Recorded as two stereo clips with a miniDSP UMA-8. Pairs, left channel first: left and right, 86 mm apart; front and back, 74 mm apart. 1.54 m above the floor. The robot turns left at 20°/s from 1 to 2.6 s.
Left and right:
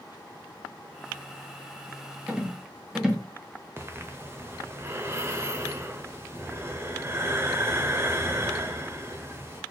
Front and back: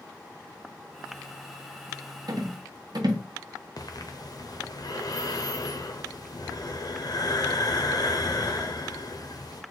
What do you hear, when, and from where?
2.3 s a rattle: 165° right, 0.8 m; by 3.2 s 170° right, 0.8 m
3.8 s breathing: 30° right, 0.6 m